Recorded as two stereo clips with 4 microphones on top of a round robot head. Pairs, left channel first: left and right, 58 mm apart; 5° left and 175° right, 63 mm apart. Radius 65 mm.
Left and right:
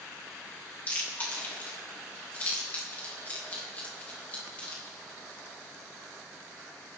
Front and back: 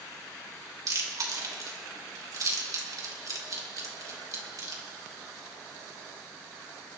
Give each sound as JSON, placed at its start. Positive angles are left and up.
{"t": 0.9, "sound": "chewing", "azimuth_deg": 155, "distance_m": 3.5}